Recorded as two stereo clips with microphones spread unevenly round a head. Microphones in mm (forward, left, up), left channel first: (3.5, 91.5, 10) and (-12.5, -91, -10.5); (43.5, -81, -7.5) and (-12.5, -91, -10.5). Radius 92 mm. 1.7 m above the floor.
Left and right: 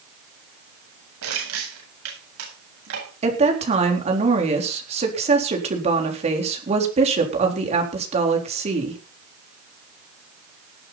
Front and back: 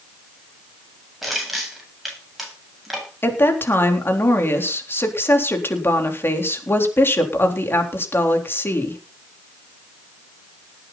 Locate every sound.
1.2 s crushing: 80° right, 9 m
3.2 s a woman speaking: 35° right, 4 m